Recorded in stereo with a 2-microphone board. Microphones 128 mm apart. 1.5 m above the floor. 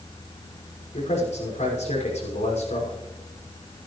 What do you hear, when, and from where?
0.9 s a man speaking: 70° left (ahead or behind), 5.5 m